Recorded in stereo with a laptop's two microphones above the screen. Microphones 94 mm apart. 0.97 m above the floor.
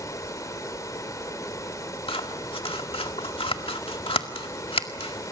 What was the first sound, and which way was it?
Running water, 35° left (ahead or behind).